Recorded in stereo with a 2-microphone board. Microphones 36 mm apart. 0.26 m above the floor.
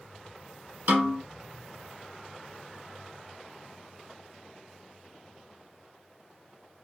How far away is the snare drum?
About 0.8 m.